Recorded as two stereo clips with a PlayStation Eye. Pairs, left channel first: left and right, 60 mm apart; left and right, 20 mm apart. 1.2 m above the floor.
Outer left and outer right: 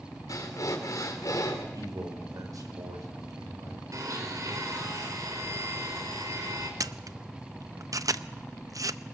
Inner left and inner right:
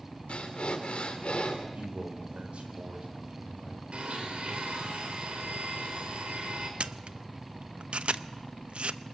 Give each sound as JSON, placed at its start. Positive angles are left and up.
{"t": 0.3, "sound": "breathing", "side_deg": 70, "distance_m": 3.5}
{"t": 1.7, "sound": "a man speaking", "side_deg": -75, "distance_m": 4.0}
{"t": 3.9, "sound": "a blender", "side_deg": -65, "distance_m": 4.5}
{"t": 6.8, "sound": "a camera shutter", "side_deg": -65, "distance_m": 0.6}